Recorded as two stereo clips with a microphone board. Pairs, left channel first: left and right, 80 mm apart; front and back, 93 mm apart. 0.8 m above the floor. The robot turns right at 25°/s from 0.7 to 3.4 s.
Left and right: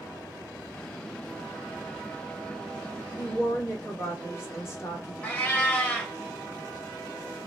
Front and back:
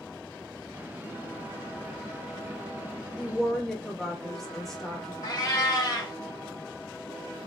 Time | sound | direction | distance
3.2 | a woman speaking | 80° left | 1.0 m
5.2 | a cat meowing | 25° left | 0.7 m